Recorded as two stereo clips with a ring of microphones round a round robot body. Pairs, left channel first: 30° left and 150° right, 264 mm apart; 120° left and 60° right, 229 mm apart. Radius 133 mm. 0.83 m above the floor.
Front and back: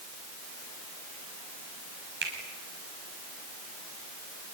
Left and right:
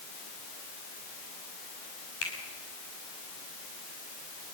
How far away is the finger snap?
About 6.5 m.